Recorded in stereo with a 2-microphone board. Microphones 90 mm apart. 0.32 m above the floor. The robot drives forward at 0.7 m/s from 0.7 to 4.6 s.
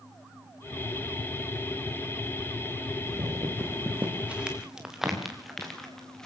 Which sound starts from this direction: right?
Footsteps, at 3.1 s.